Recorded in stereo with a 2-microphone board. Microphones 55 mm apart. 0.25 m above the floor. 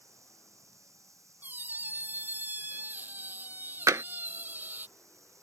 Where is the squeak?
35° right (ahead or behind).